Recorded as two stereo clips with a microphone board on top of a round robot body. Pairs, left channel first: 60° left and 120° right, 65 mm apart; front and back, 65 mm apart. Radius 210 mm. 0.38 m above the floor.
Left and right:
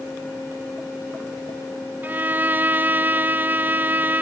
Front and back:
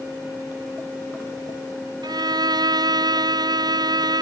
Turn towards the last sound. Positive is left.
turn(degrees=175)